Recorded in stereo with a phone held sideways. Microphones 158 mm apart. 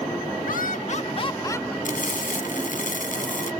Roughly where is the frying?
Left.